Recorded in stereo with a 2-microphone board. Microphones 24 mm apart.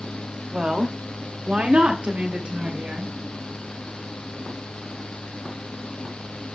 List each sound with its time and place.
0.5 s a woman speaking: 40° right (ahead or behind), 1.2 m; by 3.1 s 70° right (ahead or behind), 3 m